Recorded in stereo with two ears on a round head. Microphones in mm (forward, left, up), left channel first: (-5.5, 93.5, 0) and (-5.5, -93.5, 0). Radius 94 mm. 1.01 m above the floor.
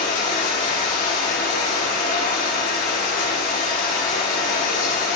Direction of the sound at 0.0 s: 50° left (ahead or behind).